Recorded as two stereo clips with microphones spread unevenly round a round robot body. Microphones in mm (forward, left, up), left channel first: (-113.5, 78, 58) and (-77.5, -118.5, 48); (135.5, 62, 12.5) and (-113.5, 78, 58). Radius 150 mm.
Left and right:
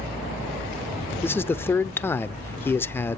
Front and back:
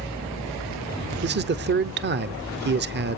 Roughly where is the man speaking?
Behind.